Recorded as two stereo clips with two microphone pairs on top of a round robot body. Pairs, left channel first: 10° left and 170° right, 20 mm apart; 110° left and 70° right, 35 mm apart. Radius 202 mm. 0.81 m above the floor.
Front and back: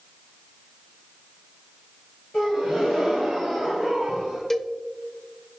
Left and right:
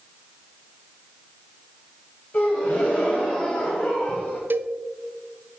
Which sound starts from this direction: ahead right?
A cowbell, at 4.5 s.